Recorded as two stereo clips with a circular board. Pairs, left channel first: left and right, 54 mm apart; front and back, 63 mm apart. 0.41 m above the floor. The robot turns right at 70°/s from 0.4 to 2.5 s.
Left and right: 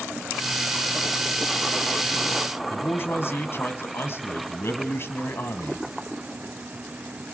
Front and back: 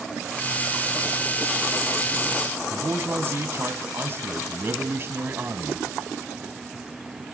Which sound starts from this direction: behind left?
A man speaking, at 2.7 s.